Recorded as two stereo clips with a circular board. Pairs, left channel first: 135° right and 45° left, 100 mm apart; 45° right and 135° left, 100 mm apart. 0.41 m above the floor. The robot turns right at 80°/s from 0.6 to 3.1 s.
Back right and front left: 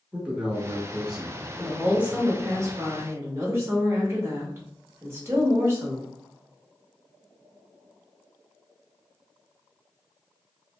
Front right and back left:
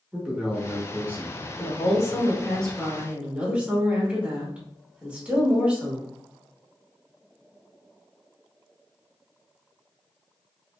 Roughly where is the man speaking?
Left.